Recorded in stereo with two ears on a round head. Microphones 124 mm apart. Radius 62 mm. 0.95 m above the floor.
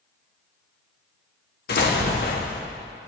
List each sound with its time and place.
1.7 s an explosion: 80° left, 1.3 m